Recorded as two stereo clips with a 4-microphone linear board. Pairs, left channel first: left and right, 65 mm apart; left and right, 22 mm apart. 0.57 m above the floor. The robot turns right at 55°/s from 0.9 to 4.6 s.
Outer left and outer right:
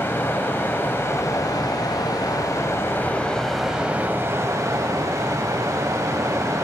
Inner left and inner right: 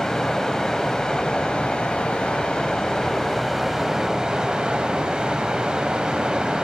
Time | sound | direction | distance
0.0 | running water | 35° left | 0.9 m